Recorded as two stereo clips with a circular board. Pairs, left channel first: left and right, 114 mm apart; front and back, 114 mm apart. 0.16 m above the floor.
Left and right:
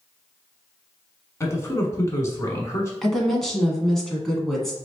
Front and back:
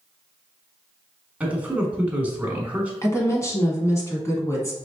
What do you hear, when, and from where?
1.4 s a man speaking: 120° left, 1.2 m
3.0 s a woman speaking: 10° left, 1.1 m